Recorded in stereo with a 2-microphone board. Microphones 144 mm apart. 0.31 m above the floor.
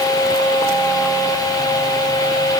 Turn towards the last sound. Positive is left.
No sound to turn to.